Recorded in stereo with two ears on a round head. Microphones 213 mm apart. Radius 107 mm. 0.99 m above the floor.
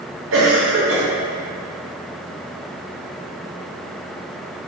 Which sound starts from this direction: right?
A cough, at 0.3 s.